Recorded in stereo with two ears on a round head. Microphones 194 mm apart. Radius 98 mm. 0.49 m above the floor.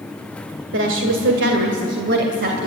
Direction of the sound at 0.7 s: 60° right (ahead or behind).